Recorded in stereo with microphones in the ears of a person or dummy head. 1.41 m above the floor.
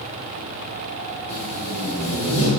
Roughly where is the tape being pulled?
Left.